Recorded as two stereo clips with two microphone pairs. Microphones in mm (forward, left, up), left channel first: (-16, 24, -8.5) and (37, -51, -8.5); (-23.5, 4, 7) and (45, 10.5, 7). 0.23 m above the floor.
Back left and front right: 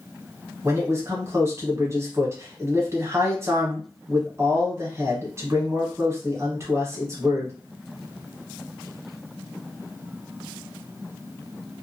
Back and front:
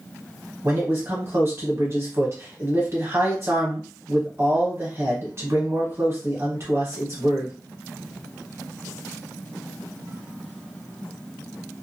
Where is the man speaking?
15° right, 1.3 m.